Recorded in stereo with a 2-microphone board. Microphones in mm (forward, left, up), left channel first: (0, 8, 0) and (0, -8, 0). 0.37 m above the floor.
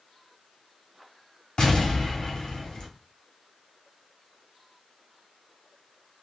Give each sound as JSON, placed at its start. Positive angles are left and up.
{"t": 1.6, "sound": "an explosion", "side_deg": 55, "distance_m": 1.4}